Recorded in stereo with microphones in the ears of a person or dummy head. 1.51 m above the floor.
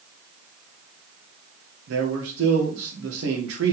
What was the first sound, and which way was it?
A man speaking, 80° right.